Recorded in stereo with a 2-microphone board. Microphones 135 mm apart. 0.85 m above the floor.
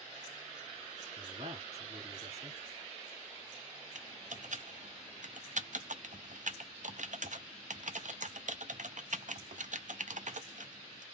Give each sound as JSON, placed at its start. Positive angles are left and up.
{"t": 1.2, "sound": "a man speaking", "side_deg": -50, "distance_m": 2.0}
{"t": 4.0, "sound": "typing on a keyboard", "side_deg": -70, "distance_m": 0.5}